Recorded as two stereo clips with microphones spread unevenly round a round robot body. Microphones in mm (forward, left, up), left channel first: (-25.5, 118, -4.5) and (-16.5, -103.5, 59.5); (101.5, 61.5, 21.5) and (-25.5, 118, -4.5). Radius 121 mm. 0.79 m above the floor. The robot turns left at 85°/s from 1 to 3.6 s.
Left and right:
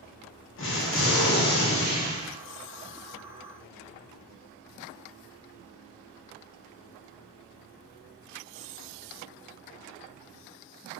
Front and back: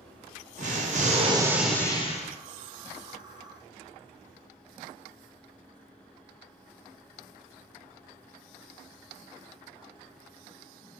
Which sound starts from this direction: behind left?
An explosion, at 0.6 s.